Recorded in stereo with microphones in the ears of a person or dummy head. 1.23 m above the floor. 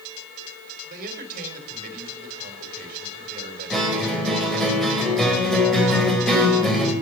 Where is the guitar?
Centre (ahead or behind), 4 m.